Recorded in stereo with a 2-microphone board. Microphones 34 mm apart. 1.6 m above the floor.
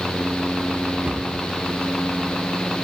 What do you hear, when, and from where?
1.1 s a cupboard door: 45° right (ahead or behind), 3.5 m